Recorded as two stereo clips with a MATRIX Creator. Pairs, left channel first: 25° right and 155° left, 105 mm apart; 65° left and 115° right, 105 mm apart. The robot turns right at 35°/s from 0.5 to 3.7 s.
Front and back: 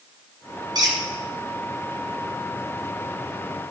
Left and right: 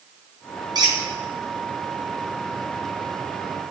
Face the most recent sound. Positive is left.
turn(degrees=-55)